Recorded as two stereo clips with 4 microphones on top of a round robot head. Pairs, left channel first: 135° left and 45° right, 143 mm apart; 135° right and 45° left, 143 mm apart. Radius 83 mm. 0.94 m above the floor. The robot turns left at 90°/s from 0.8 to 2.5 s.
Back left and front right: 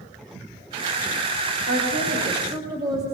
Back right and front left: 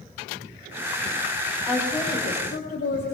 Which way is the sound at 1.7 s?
30° right.